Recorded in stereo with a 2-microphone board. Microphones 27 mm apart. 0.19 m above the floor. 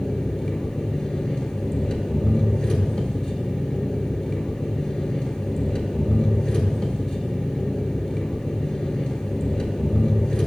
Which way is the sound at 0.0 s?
35° left (ahead or behind).